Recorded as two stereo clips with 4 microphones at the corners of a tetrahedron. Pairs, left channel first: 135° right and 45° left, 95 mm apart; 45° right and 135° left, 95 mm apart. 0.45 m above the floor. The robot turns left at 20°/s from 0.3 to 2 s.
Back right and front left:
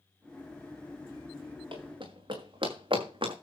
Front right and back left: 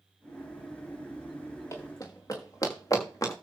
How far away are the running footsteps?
About 5.5 m.